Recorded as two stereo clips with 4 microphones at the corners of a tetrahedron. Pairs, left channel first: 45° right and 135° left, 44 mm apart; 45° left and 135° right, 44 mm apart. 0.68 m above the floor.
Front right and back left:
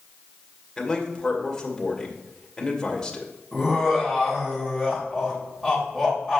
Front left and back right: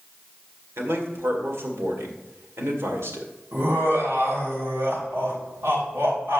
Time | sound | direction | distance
0.8 | a man speaking | 120° right | 2.0 m
3.5 | laughter | 145° right | 3 m